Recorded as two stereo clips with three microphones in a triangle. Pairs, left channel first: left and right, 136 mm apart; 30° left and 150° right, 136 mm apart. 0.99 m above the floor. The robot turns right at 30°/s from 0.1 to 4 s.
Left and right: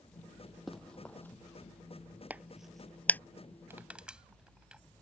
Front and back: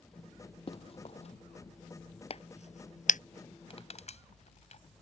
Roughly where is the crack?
Ahead.